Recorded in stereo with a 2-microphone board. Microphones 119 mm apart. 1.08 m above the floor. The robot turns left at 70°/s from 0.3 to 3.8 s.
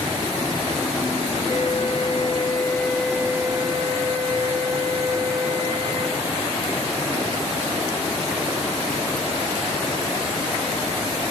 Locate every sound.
1.5 s a flute: 110° left, 1.2 m; by 6.2 s 55° right, 1.2 m